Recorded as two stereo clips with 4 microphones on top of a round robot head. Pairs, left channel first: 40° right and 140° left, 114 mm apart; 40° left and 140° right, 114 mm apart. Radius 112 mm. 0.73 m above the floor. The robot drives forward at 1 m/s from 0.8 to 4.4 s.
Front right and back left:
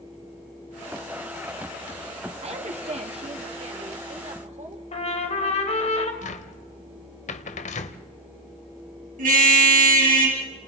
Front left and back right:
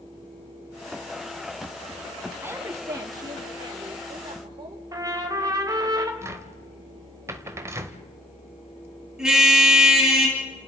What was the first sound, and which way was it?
A woman speaking, 155° left.